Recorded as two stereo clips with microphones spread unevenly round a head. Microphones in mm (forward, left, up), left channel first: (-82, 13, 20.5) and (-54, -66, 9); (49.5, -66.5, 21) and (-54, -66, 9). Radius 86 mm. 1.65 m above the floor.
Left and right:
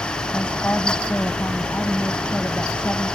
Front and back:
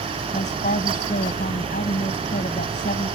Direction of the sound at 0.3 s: 30° left.